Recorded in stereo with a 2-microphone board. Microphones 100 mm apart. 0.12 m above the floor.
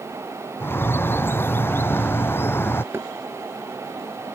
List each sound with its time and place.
0.6 s a bird: 20° left (ahead or behind)
2.9 s knocking: 25° right (ahead or behind)